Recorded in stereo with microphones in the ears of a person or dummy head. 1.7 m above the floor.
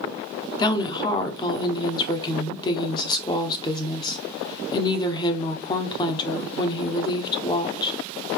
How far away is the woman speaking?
About 0.9 m.